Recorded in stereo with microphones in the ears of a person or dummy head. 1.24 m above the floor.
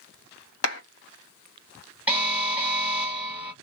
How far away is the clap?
About 1.8 m.